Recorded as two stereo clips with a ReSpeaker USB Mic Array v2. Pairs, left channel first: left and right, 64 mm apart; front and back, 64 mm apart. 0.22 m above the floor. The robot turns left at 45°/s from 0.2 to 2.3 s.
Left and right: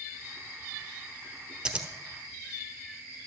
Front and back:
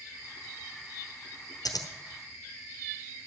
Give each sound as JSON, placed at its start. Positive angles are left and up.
{"t": 1.6, "sound": "scissors", "azimuth_deg": -15, "distance_m": 1.1}